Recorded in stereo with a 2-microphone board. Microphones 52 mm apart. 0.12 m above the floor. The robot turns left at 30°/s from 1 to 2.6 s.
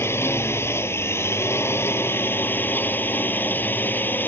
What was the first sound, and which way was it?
A drone, 100° left.